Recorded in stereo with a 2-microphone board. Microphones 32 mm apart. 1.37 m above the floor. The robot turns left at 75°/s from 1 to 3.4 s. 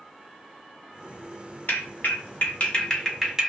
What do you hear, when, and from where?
1.7 s a clap: 65° left (ahead or behind), 1.1 m; by 3.5 s 15° right (ahead or behind), 1.1 m